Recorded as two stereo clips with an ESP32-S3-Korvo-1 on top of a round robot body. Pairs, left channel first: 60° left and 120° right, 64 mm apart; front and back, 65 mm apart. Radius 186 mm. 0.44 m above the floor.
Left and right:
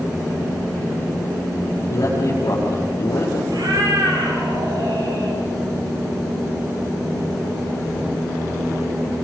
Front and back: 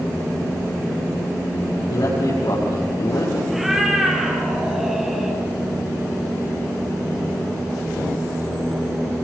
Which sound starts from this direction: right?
A cat meowing, at 3.5 s.